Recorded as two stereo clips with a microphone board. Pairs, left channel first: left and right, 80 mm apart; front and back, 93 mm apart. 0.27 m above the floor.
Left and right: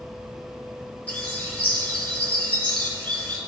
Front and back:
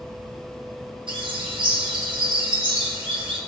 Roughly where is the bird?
Behind.